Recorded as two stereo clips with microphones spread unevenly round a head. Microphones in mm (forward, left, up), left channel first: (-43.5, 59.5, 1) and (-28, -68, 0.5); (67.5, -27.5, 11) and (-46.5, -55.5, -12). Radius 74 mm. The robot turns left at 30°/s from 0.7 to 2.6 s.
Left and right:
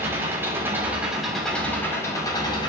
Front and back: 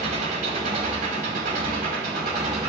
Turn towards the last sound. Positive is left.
turn(degrees=145)